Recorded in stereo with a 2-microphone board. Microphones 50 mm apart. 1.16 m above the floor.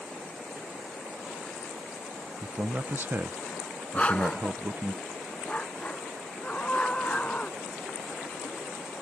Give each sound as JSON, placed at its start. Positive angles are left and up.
{"t": 2.4, "sound": "a man speaking", "side_deg": -45}
{"t": 3.9, "sound": "a dog barking", "side_deg": 25}
{"t": 6.4, "sound": "a scream", "side_deg": 25}